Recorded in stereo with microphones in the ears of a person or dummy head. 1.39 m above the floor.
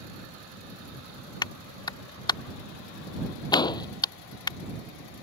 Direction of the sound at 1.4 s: 25° left (ahead or behind).